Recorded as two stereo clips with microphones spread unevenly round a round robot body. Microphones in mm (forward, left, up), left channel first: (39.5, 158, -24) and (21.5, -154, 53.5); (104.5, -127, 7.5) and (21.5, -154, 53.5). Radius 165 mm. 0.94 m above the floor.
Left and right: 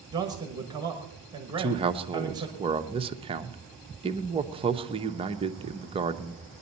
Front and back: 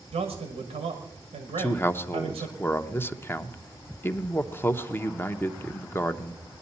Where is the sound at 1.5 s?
15° right, 0.9 m.